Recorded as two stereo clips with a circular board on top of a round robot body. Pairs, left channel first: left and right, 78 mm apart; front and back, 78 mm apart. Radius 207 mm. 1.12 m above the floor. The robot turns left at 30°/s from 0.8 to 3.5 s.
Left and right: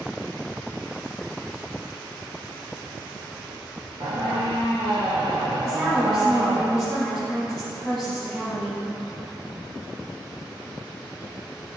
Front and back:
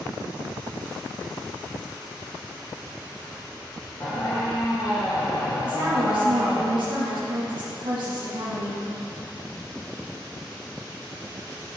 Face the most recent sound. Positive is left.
turn(degrees=175)